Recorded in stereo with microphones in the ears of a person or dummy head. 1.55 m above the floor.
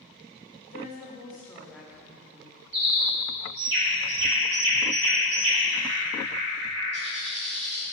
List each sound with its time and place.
0.7 s a woman speaking: 50° left (ahead or behind), 0.9 m; by 2.6 s 30° right (ahead or behind), 1.2 m
2.7 s a bird: 65° right (ahead or behind), 1.6 m